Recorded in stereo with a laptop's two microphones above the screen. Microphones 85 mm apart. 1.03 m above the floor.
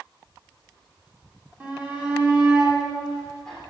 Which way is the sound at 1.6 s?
20° right (ahead or behind).